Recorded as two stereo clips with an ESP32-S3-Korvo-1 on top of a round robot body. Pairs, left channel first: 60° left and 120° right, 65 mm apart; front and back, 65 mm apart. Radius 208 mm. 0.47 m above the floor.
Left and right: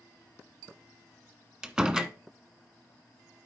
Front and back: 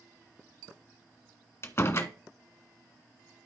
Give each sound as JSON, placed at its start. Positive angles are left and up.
{"t": 1.6, "sound": "a door slam", "azimuth_deg": -40, "distance_m": 1.3}